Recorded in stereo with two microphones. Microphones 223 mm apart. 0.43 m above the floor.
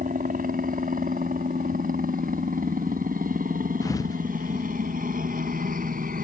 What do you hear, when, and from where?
0.0 s a helicopter: 35° right (ahead or behind)
3.8 s a thud: 15° left (ahead or behind)